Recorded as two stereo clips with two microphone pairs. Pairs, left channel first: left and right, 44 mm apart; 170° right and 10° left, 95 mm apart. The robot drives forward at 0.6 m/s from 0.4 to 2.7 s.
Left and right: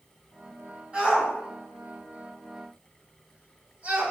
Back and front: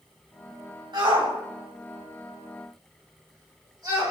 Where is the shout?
25° right, 3.5 m; by 4.1 s 35° right, 3 m.